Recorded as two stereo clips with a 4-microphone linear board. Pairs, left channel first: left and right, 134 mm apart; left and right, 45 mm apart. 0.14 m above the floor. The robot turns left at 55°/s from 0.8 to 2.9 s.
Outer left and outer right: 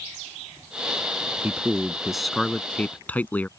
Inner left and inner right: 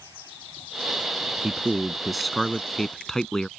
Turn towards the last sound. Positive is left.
turn(degrees=10)  # may be behind; listen again after turning